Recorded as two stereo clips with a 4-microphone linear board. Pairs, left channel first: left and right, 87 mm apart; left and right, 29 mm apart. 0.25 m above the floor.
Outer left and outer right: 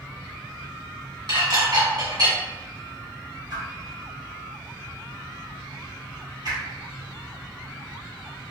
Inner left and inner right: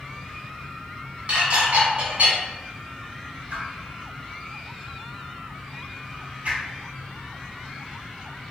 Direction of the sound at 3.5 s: 55° right (ahead or behind).